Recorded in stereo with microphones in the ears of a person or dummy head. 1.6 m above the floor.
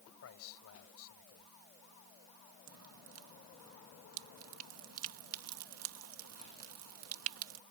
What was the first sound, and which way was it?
A man speaking, 80° left.